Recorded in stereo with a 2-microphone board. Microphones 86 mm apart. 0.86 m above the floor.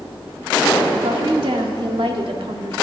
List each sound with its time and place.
1.0 s a woman speaking: 70° right (ahead or behind), 1.6 m